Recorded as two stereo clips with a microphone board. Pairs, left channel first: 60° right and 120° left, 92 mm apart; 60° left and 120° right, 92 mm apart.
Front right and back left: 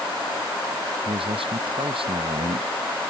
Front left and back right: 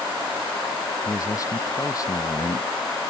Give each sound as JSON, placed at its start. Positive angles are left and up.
{"t": 1.1, "sound": "a man speaking", "azimuth_deg": 115}